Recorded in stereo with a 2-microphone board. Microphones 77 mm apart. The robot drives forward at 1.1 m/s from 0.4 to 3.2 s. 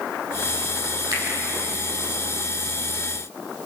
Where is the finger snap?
55° right (ahead or behind), 4.5 m.